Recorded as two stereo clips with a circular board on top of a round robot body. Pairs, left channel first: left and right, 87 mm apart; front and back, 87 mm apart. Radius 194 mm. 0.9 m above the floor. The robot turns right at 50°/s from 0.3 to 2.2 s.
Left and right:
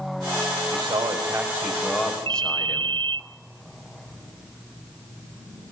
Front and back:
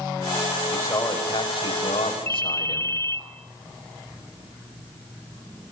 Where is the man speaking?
65° right, 5.5 m; by 2.9 s 10° left, 5.5 m.